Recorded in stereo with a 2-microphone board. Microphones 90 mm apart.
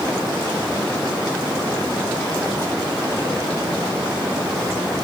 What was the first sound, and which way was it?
Only background noise.